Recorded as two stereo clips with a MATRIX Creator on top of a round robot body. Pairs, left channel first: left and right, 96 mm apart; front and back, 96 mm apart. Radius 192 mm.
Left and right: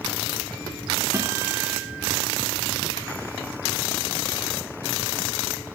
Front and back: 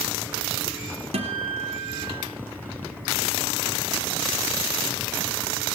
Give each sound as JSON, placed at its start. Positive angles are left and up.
{"t": 1.1, "sound": "a guitar", "azimuth_deg": -160, "distance_m": 0.9}